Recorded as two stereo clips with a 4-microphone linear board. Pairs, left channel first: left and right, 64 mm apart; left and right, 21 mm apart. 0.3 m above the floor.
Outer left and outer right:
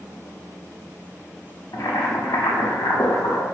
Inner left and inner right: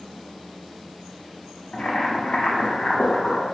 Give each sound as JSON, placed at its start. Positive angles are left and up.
{"t": 1.7, "sound": "boiling", "side_deg": 75, "distance_m": 0.6}